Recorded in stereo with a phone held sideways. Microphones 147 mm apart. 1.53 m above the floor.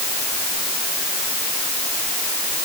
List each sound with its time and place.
Only background noise.